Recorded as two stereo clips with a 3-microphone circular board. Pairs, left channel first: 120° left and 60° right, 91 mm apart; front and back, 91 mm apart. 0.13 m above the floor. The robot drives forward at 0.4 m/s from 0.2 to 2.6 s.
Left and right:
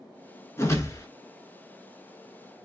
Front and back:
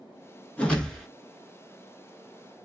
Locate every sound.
0.6 s a whoosh: 70° left, 0.9 m; by 1.1 s 90° left, 0.9 m